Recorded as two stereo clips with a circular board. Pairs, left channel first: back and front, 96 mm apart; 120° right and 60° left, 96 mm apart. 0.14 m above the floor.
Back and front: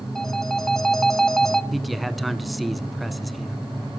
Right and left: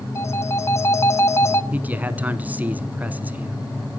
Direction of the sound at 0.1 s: 100° right.